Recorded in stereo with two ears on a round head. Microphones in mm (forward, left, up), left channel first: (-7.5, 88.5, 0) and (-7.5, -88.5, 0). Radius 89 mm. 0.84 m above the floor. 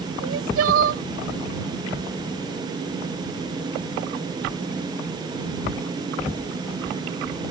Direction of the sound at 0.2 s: 80° right.